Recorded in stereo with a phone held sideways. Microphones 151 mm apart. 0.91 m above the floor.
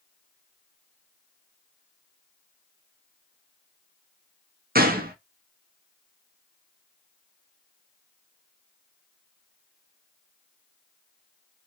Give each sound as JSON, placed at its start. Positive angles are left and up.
{"t": 4.8, "sound": "a gunshot", "side_deg": -85, "distance_m": 0.6}